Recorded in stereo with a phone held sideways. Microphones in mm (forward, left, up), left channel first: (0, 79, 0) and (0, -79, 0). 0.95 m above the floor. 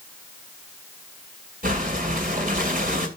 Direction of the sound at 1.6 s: 60° right (ahead or behind).